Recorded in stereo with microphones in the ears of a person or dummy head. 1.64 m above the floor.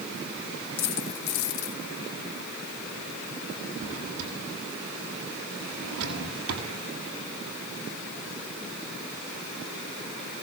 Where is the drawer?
80° right, 8.5 m.